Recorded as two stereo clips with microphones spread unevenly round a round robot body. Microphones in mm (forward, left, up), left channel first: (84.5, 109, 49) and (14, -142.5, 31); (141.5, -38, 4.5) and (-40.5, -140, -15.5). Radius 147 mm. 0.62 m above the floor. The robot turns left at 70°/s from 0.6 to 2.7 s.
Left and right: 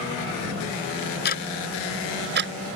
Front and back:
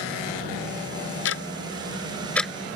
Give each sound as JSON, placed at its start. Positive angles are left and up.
{"t": 1.2, "sound": "ticking", "azimuth_deg": 25}